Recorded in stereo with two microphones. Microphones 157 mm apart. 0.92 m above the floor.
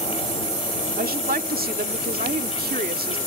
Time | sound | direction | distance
1.0 | a woman speaking | 75° right (ahead or behind) | ?